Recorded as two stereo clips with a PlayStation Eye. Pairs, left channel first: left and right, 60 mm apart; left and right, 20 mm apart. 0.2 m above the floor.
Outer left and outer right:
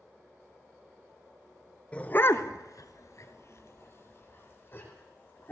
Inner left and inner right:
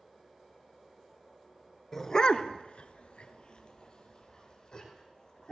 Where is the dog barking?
20° left (ahead or behind), 0.8 m; by 5.5 s 35° left (ahead or behind), 3.5 m.